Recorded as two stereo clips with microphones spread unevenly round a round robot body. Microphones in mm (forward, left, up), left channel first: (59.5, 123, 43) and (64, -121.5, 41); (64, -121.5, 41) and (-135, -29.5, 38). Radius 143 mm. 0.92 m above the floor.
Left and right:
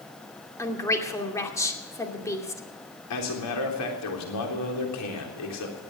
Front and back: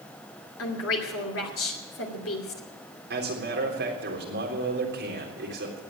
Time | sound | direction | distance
0.6 | a woman speaking | 15° left | 2.5 m
3.1 | a man speaking | 110° left | 3.5 m